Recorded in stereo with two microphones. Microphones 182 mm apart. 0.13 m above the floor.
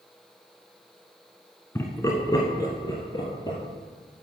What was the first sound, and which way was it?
Laughter, 15° left (ahead or behind).